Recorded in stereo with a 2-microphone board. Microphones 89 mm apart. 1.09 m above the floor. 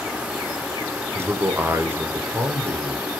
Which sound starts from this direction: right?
A man speaking, at 1.1 s.